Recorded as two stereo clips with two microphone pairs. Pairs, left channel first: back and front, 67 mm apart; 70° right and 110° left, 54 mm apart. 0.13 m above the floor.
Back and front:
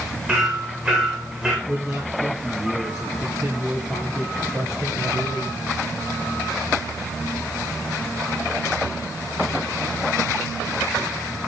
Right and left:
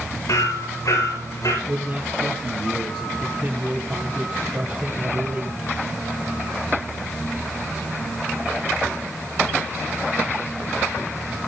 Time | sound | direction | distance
0.3 | hammering | 75° right | 10 m
1.7 | a man speaking | 55° left | 3 m